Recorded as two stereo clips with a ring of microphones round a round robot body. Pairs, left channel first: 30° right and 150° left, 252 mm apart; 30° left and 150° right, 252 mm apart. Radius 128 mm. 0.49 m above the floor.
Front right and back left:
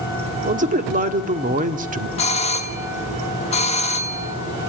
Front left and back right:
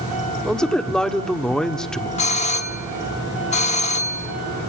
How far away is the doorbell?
About 1.3 m.